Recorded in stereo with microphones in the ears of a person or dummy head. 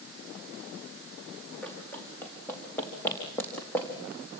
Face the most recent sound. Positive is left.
turn(degrees=10)  # may be behind; listen again after turning